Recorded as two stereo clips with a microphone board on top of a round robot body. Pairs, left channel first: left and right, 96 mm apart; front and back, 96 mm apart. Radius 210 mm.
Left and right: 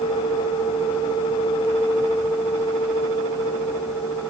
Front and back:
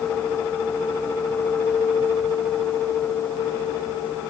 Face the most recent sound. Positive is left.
No sound to turn to.